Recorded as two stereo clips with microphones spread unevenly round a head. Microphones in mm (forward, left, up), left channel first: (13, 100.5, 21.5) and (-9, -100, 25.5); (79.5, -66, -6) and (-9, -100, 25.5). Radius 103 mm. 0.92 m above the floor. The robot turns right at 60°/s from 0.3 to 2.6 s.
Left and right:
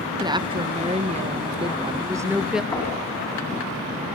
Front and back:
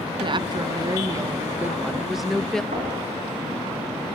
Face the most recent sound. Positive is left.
turn(degrees=160)